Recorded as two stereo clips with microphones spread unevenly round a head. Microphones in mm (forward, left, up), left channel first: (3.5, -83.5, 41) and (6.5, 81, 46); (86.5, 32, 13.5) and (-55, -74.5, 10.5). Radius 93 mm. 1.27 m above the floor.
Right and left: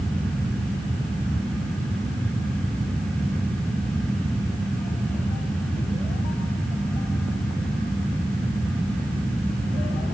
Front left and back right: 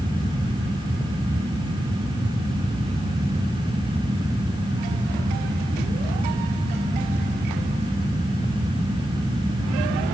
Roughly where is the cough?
No cough in this recording.